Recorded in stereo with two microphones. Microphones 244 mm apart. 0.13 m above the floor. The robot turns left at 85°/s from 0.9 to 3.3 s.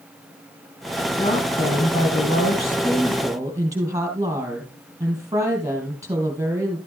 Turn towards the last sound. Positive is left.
turn(degrees=-15)